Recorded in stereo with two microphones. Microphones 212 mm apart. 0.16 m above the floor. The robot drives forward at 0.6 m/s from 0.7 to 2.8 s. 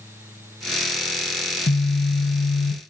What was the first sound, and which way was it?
A phone buzzing, 70° left (ahead or behind).